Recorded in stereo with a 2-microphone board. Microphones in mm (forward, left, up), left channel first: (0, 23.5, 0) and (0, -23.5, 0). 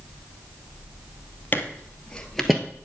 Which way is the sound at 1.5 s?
40° left (ahead or behind).